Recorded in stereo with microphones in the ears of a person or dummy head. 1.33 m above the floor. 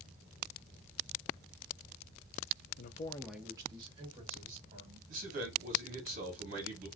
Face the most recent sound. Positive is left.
turn(degrees=-45)  # may be behind; listen again after turning